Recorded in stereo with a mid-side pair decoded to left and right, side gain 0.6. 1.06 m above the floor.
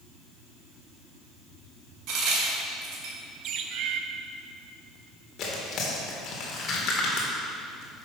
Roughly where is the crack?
Ahead right.